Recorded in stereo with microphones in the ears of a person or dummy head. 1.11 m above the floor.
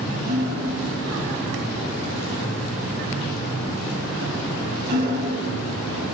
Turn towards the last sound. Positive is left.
turn(degrees=-60)  # may be behind; listen again after turning